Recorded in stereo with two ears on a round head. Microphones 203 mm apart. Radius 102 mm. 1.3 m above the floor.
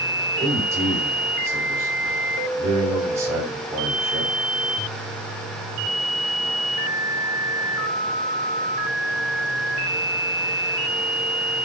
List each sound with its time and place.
0.4 s a man speaking: 15° right (ahead or behind), 5.5 m